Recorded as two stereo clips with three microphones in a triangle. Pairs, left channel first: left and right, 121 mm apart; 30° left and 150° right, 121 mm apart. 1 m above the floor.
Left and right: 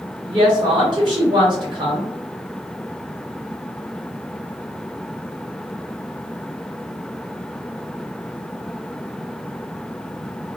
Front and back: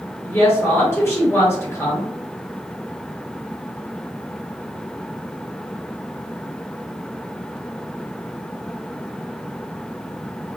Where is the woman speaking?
40° right, 1.4 m.